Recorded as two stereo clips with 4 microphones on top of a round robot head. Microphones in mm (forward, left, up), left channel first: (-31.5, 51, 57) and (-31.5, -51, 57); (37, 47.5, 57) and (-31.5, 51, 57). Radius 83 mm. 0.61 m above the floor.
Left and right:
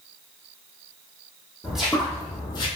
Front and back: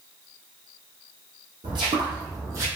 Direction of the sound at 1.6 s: 170° right.